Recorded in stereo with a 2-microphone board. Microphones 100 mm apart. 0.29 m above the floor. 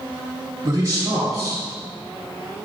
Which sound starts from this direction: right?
A man speaking, at 0.6 s.